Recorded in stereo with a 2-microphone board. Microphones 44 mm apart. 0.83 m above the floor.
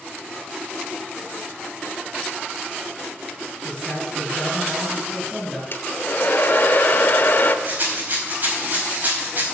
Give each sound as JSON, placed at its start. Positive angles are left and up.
{"t": 3.6, "sound": "a man speaking", "side_deg": 15, "distance_m": 5.0}
{"t": 5.7, "sound": "a hair dryer", "side_deg": 50, "distance_m": 1.0}
{"t": 7.7, "sound": "a rattle", "side_deg": -40, "distance_m": 4.5}